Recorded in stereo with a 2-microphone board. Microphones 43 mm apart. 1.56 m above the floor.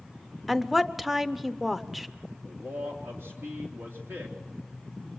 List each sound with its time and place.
0.5 s a woman speaking: 5° right (ahead or behind), 0.7 m
2.4 s a man speaking: 75° right (ahead or behind), 3.5 m